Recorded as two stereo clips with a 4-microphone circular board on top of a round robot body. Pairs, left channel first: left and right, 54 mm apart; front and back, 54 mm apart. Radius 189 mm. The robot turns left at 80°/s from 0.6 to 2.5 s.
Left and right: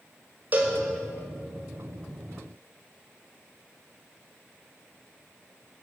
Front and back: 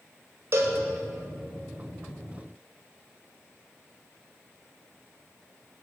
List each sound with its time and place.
0.5 s a cowbell: 145° right, 1.8 m; by 0.8 s 160° right, 1.8 m